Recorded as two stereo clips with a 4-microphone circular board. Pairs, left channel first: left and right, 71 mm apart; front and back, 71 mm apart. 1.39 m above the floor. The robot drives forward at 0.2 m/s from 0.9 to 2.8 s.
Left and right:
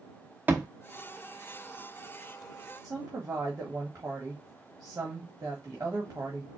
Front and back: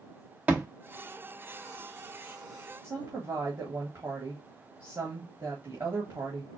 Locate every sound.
0.5 s a thud: 135° right, 1.0 m
2.8 s a woman speaking: 140° right, 1.4 m